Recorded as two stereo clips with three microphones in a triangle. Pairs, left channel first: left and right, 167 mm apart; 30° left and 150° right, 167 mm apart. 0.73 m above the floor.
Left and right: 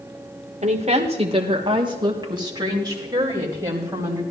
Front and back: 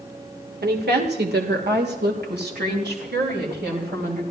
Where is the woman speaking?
140° right, 1.7 m; by 4.2 s 165° right, 3.5 m.